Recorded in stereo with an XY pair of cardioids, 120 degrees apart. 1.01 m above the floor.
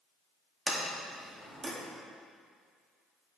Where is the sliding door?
30° right, 1.9 m.